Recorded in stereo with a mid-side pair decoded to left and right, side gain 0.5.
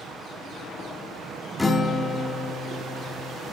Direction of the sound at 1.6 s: 20° left.